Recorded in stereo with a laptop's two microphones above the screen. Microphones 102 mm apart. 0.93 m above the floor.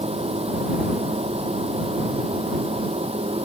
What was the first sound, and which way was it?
A machine running, 90° right.